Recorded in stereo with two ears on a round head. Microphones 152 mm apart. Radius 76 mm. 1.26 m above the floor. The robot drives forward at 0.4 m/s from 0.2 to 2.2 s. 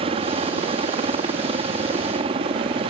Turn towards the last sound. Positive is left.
turn(degrees=-35)  # may be behind; listen again after turning